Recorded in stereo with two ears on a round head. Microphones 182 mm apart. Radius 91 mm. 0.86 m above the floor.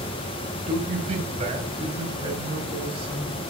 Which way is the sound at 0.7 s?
35° right (ahead or behind).